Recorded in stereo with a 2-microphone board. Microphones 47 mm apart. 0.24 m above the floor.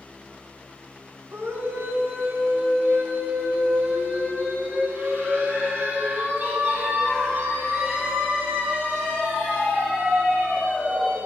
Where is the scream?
60° right (ahead or behind), 1.7 m; by 11.2 s 30° right (ahead or behind), 11 m.